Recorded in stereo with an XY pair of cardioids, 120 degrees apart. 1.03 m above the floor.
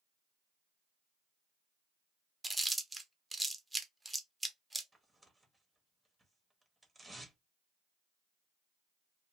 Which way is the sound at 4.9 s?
10° right.